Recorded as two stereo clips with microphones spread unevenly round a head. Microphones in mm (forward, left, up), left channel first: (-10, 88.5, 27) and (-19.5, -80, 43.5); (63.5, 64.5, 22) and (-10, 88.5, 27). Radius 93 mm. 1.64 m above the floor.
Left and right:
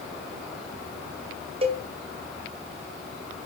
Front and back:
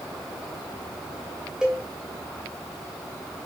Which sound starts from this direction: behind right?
A cowbell, at 1.6 s.